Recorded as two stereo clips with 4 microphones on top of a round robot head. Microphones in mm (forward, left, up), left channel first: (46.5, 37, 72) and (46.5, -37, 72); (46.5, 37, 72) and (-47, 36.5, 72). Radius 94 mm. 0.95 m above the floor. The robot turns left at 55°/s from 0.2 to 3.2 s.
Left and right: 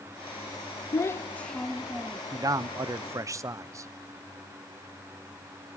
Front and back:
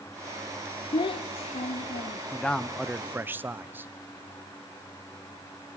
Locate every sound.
0.9 s a child speaking: 45° left, 0.5 m; by 2.2 s 30° right, 0.5 m
2.3 s a man speaking: 70° right, 0.7 m; by 3.9 s 115° right, 0.7 m